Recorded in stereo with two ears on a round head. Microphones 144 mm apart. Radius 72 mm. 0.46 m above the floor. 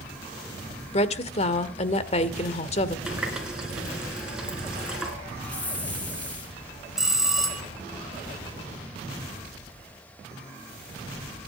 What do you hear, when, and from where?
0.9 s a woman speaking: 40° left (ahead or behind), 1.5 m
3.1 s a running tap: 5° right (ahead or behind), 4 m
5.4 s a hiss: 10° left (ahead or behind), 3 m
7.0 s a bell: 5° right (ahead or behind), 2 m